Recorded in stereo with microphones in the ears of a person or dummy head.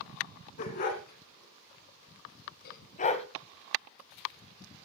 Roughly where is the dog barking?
Left.